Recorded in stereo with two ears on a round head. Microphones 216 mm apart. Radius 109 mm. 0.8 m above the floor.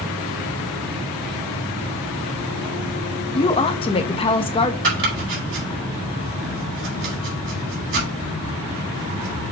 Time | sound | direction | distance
3.3 | a woman speaking | 25° left (ahead or behind) | 0.9 m
4.8 | chopping | 60° right (ahead or behind) | 4.5 m